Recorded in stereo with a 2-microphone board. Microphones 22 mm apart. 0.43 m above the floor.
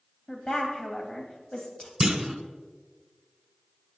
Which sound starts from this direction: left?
A woman speaking, at 0.3 s.